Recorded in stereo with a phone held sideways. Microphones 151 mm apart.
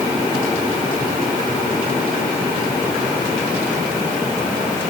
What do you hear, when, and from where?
Only background noise.